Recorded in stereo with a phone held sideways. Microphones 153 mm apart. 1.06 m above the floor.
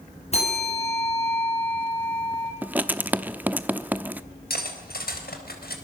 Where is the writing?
10° right (ahead or behind), 0.8 m.